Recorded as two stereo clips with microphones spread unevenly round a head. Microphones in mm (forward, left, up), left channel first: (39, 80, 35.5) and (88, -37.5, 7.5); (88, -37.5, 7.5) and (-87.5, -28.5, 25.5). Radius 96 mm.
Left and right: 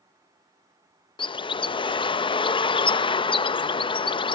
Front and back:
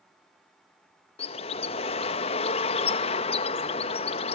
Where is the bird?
60° left, 0.7 m.